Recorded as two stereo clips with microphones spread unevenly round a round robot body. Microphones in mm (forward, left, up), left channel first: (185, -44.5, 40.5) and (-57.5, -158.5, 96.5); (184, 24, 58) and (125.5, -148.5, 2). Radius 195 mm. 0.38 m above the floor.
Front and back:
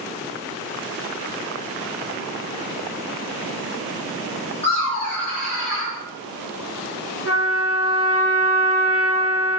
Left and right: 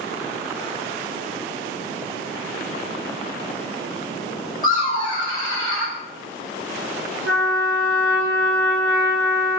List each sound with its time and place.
4.6 s laughter: 75° left, 1.4 m; by 6.0 s 50° right, 1.7 m
7.2 s a trumpet: 135° right, 1.4 m